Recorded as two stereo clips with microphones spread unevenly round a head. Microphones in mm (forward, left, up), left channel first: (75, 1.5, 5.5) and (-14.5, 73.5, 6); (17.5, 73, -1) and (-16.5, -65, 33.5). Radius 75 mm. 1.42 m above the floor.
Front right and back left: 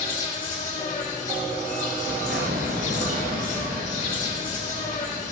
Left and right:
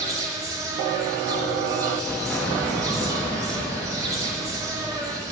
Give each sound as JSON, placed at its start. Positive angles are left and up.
{"t": 0.0, "sound": "an insect", "azimuth_deg": -30, "distance_m": 3.0}
{"t": 2.1, "sound": "an explosion", "azimuth_deg": 160, "distance_m": 1.1}